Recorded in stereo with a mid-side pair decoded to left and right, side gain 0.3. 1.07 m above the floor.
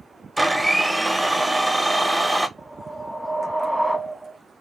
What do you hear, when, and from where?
0.4 s a blender: 15° right, 0.6 m
2.6 s a whoosh: 5° right, 0.8 m